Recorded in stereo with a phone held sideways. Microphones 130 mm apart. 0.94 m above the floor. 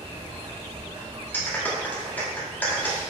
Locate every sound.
0.0 s running water: 45° right (ahead or behind), 2.5 m
1.3 s a clap: 15° left (ahead or behind), 2.0 m